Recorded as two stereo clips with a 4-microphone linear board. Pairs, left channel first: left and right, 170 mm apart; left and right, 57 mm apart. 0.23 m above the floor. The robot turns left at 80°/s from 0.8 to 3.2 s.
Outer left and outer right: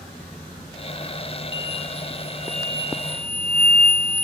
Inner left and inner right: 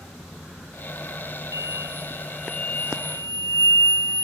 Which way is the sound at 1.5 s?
105° right.